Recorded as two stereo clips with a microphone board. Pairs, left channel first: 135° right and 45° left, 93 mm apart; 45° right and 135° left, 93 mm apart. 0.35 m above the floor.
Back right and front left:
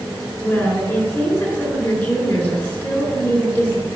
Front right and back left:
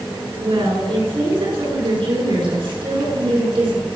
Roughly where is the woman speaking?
Behind left.